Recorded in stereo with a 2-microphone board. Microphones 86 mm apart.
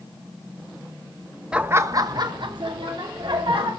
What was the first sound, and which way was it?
Laughter, 10° right (ahead or behind).